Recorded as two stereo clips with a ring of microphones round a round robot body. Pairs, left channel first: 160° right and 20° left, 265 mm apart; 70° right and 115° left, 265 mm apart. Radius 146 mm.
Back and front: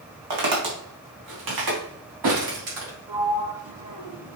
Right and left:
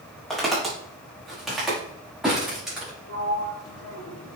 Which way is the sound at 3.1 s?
30° right.